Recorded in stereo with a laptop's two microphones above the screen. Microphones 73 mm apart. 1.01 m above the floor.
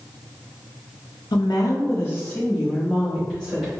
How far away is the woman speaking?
About 0.6 m.